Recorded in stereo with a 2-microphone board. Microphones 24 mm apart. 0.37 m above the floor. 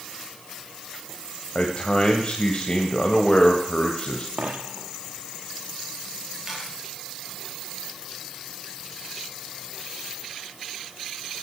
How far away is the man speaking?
About 2 m.